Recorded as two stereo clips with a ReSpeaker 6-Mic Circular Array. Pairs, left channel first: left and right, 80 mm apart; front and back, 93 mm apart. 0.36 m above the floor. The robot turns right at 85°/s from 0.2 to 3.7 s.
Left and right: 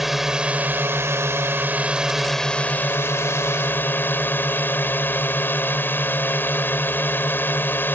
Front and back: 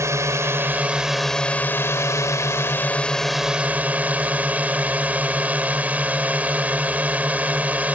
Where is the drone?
175° right; by 8.0 s 125° left.